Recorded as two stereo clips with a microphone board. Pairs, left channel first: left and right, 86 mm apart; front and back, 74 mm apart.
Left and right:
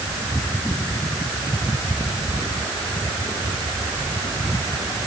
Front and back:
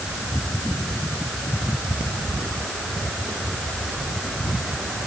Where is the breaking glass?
I don't hear breaking glass.